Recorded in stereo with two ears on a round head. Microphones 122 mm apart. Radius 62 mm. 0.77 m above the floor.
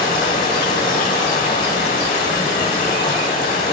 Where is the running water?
60° left (ahead or behind), 1.0 m.